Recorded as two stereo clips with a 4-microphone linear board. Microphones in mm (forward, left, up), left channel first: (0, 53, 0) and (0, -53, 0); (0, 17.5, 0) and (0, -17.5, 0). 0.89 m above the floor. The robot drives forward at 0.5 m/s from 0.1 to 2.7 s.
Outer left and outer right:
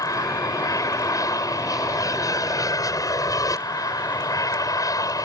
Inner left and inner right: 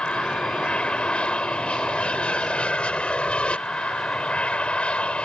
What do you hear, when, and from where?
0.0 s an aircraft: 30° left (ahead or behind); by 5.3 s 35° left (ahead or behind)